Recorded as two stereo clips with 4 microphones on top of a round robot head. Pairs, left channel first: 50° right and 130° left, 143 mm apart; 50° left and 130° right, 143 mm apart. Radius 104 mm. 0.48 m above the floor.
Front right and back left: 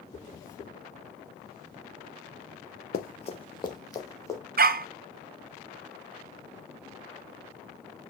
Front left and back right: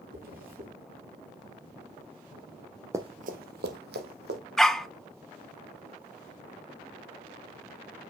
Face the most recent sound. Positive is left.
turn(degrees=140)